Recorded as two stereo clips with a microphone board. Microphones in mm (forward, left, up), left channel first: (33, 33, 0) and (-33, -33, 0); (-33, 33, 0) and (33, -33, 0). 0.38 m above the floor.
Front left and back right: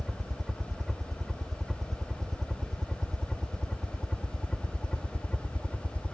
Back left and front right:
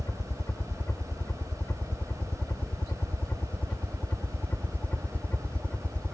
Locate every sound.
0.0 s a helicopter: 145° left; by 6.1 s 90° left